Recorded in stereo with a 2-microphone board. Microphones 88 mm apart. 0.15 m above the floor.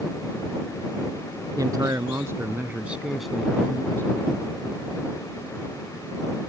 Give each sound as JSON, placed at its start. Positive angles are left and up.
{"t": 1.6, "sound": "a man speaking", "side_deg": -45}